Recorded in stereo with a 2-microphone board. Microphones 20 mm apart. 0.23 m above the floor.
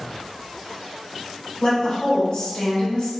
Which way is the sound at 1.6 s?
45° left (ahead or behind).